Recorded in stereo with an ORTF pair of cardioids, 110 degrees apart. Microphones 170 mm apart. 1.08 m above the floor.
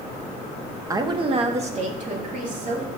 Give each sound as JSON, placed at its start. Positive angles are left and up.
{"t": 0.9, "sound": "a woman speaking", "azimuth_deg": -20, "distance_m": 0.7}